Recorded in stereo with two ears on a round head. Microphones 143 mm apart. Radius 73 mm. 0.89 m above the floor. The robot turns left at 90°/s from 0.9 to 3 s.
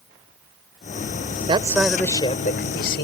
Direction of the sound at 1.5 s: 145° right.